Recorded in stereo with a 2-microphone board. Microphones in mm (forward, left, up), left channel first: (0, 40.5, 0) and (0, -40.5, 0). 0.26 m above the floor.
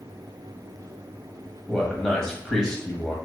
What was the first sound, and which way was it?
A man speaking, 5° left (ahead or behind).